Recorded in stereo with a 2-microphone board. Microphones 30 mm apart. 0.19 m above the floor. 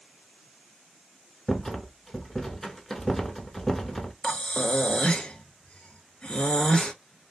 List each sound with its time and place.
1.5 s a rattle: 10° left (ahead or behind), 0.6 m
4.2 s breathing: 30° left (ahead or behind), 0.6 m